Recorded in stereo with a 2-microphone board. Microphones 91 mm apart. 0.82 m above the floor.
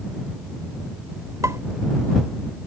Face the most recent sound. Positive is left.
turn(degrees=-35)  # may be behind; listen again after turning